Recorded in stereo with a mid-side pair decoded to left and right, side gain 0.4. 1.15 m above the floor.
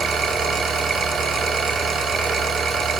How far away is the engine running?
About 1.0 m.